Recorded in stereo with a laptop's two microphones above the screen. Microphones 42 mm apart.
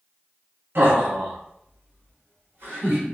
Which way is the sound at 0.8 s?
55° right (ahead or behind).